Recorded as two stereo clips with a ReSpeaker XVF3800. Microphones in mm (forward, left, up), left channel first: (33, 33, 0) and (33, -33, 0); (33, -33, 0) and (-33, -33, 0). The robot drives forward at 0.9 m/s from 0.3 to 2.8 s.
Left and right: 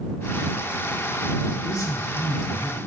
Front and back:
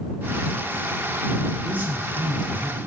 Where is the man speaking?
115° left, 2.5 m; by 2.9 s 135° left, 3 m.